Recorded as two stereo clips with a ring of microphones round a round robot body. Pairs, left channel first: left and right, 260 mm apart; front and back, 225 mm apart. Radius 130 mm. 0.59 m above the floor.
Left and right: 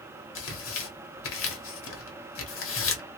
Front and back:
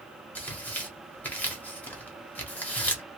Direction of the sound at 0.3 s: 80° left.